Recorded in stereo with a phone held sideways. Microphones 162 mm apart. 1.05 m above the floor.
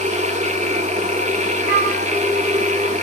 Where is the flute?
80° right, 5.5 m.